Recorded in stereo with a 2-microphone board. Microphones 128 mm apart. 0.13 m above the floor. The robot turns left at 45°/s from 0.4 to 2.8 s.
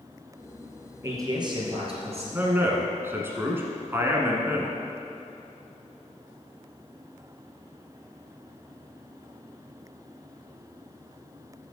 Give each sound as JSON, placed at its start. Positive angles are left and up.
{"t": 1.0, "sound": "a man speaking", "azimuth_deg": -25, "distance_m": 2.0}
{"t": 2.3, "sound": "a man speaking", "side_deg": -15, "distance_m": 1.3}